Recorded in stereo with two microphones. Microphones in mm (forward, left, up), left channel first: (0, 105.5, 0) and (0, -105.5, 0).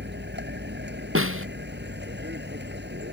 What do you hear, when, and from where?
0.0 s a vehicle: 60° right (ahead or behind)
1.1 s a snare drum: 80° right